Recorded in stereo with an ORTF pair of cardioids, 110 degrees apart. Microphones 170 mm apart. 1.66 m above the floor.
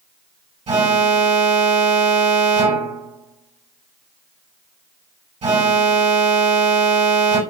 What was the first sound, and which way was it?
An alarm, 35° right.